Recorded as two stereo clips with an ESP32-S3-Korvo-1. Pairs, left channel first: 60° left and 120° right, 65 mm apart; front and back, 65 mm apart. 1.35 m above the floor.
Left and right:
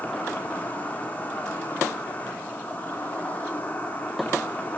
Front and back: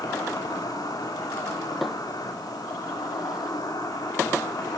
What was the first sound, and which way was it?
An insect, 5° right.